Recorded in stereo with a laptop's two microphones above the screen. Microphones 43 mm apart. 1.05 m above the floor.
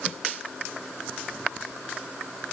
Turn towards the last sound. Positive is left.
No sound to turn to.